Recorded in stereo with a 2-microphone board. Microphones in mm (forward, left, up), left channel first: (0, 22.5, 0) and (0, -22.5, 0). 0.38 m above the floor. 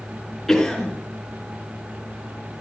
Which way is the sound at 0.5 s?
5° left (ahead or behind).